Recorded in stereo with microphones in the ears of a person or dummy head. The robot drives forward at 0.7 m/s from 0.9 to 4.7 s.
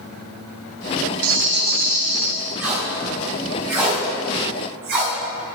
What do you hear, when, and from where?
1.2 s a rattle: 60° right (ahead or behind), 0.5 m; by 2.3 s 25° right (ahead or behind), 1.0 m
2.6 s tape being pulled: 10° right (ahead or behind), 2.0 m; by 5.1 s 5° right (ahead or behind), 3.5 m